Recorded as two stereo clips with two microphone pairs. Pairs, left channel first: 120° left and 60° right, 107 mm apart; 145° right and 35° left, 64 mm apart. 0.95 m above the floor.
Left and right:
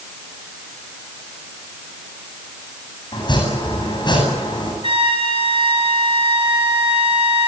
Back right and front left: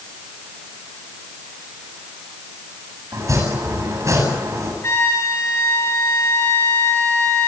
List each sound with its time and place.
3.1 s chopping: 75° left, 8.5 m
4.8 s a trumpet: 95° right, 4.5 m